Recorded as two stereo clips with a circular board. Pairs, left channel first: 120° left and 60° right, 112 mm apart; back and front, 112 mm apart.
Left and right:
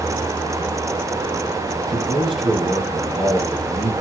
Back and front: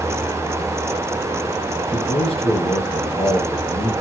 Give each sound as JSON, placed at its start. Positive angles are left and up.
{"t": 1.9, "sound": "a man speaking", "azimuth_deg": -145, "distance_m": 3.5}